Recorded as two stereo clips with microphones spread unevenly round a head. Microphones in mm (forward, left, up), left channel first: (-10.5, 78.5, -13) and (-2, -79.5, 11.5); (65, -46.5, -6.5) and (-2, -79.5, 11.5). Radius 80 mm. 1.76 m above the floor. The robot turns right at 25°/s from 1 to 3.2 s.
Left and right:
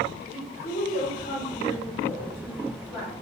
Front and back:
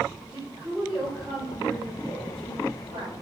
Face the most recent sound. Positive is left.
turn(degrees=175)